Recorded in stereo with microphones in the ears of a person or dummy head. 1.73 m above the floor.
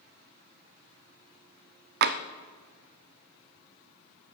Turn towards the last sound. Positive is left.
turn(degrees=-55)  # may be behind; listen again after turning